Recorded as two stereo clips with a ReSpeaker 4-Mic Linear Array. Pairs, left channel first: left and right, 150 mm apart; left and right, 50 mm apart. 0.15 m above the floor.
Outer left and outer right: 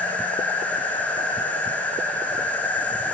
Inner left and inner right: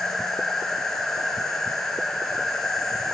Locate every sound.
0.0 s an insect: 10° left (ahead or behind), 0.9 m